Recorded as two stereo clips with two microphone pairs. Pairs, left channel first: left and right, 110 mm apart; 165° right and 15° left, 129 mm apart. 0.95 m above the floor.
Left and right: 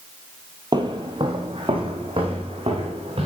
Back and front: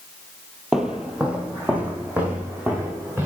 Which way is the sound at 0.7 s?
70° right.